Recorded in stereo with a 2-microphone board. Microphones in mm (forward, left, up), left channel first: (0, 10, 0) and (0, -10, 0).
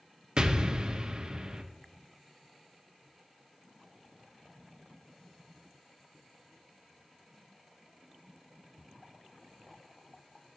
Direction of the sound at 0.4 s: 35° right (ahead or behind).